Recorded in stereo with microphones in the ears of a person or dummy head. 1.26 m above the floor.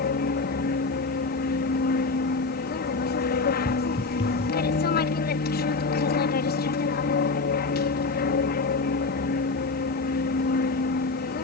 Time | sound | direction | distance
0.0 | an aircraft | 45° left (ahead or behind) | ?
3.6 | footsteps | 20° left (ahead or behind) | ?